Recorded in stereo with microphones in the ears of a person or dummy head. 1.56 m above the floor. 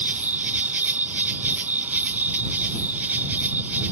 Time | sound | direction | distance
0.0 | an insect | 10° right (ahead or behind) | ?